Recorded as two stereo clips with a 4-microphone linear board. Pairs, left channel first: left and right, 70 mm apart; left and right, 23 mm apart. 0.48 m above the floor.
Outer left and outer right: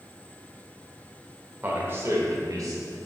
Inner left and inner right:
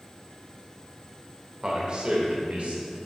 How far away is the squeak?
I don't hear a squeak.